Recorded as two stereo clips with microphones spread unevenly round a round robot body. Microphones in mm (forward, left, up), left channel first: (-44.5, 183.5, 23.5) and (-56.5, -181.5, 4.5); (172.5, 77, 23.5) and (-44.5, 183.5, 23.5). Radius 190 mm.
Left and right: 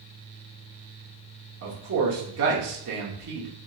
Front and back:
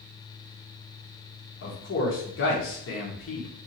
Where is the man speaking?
50° right, 1.2 m.